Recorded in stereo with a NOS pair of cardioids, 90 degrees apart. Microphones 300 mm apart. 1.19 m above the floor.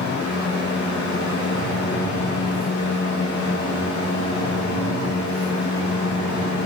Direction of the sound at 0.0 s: 65° left.